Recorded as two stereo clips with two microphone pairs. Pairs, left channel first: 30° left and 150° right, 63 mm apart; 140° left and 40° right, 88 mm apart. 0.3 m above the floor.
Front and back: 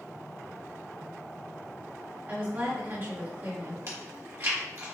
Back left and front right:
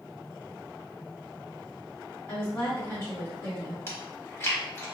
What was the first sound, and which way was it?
A woman speaking, 175° right.